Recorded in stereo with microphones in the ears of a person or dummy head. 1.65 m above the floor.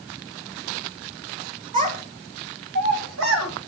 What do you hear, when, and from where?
1.7 s a child speaking: 45° right (ahead or behind), 1.6 m; by 3.5 s 80° right, 2.5 m